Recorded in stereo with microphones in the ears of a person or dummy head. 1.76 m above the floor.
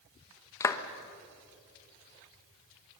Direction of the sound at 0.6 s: 20° left (ahead or behind).